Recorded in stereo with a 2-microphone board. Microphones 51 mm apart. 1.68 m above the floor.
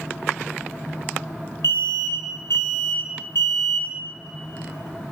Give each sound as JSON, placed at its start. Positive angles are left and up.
{"t": 1.6, "sound": "an alarm", "side_deg": 65, "distance_m": 2.5}